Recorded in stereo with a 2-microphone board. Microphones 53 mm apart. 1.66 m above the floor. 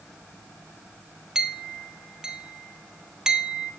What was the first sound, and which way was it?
A clink, 10° right (ahead or behind).